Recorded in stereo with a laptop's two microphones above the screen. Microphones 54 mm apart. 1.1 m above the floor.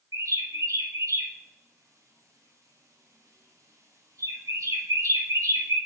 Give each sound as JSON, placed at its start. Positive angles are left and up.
{"t": 0.1, "sound": "a bird", "side_deg": -80, "distance_m": 1.4}